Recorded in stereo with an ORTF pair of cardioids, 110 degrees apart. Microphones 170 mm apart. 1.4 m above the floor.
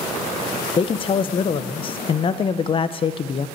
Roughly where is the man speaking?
Ahead left.